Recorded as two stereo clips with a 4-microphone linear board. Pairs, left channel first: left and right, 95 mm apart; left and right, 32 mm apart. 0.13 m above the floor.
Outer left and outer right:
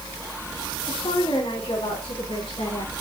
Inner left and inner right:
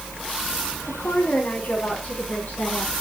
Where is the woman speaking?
70° left (ahead or behind), 8.5 m; by 2.9 s 75° left (ahead or behind), 9.5 m.